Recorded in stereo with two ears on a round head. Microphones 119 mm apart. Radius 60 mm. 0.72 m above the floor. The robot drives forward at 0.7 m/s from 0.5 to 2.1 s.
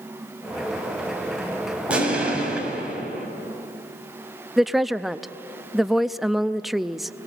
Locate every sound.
1.9 s an explosion: 10° right (ahead or behind), 5 m
4.6 s a woman speaking: centre (ahead or behind), 0.5 m